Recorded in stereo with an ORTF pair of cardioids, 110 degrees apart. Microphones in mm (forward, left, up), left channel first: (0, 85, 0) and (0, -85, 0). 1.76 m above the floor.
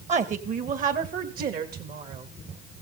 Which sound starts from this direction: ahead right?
A woman speaking, at 0.1 s.